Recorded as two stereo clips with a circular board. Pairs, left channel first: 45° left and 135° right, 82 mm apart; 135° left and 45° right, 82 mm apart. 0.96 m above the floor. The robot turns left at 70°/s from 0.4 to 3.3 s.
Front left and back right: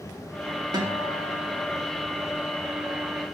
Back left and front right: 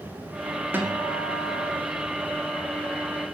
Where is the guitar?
110° right, 2 m; by 1.8 s 175° left, 2 m.